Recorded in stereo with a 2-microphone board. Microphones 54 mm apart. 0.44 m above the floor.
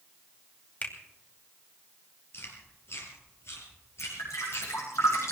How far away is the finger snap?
About 2.5 m.